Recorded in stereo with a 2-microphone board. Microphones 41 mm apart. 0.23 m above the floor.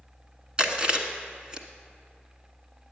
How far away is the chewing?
About 1.1 m.